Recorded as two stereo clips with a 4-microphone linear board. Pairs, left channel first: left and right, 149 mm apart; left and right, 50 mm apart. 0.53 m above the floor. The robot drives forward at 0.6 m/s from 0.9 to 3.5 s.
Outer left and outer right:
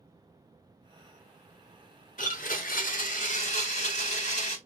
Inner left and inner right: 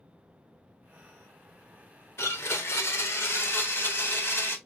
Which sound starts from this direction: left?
A blender, at 2.2 s.